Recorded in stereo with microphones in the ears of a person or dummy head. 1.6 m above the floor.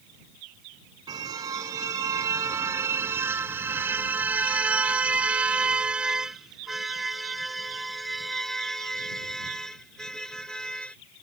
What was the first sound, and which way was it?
A car horn, 25° right (ahead or behind).